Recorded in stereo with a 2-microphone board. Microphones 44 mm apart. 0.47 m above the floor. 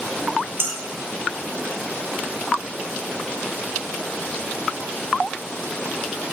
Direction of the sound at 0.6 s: 65° right (ahead or behind).